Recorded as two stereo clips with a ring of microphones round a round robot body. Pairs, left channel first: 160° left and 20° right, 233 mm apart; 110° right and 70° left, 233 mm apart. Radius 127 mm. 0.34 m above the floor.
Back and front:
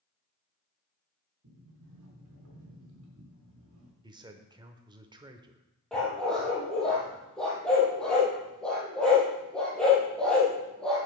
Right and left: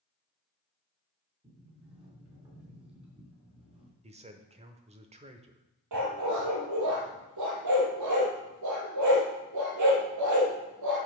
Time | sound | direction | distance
1.4 | a sliding door | straight ahead | 3.5 m
4.0 | a man speaking | 30° left | 0.9 m
5.9 | a dog barking | 70° left | 3 m